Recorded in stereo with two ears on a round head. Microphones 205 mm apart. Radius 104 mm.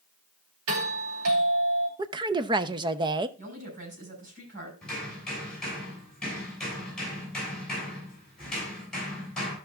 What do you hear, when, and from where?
0.7 s a doorbell: 65° right (ahead or behind), 3.5 m
2.0 s a woman speaking: 20° right (ahead or behind), 0.7 m
3.4 s a woman speaking: 35° right (ahead or behind), 6 m
4.8 s hammering: 5° left (ahead or behind), 7.5 m